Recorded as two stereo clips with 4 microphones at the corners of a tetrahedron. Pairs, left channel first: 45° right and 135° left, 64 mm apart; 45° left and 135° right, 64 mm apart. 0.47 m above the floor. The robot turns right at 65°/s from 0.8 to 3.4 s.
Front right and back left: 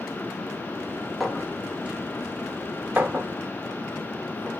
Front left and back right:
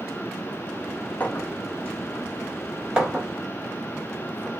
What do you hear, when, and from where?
1.2 s a clink: 45° left, 0.7 m; by 4.5 s 175° right, 0.7 m